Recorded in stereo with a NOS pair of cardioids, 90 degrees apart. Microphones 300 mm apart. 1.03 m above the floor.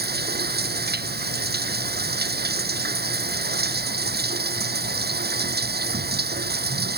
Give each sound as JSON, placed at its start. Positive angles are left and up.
{"t": 0.0, "sound": "running water", "azimuth_deg": -35}